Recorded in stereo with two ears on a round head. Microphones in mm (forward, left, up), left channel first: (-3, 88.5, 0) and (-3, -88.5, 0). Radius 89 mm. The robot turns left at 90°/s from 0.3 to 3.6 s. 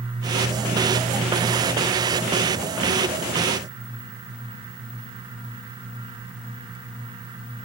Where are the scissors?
I don't hear scissors.